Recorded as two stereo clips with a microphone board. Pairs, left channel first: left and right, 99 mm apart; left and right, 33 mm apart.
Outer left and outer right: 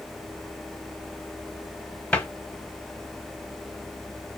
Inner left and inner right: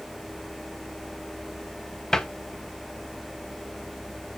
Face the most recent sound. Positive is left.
turn(degrees=15)  # may be behind; listen again after turning